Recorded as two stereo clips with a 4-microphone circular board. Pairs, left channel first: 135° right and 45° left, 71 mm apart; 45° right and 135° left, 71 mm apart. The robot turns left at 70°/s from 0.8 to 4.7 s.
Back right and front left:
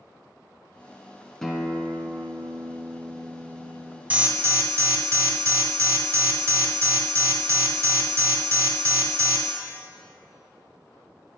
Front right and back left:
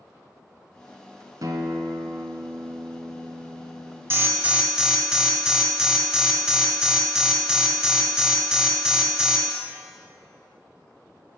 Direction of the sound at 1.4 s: 145° left.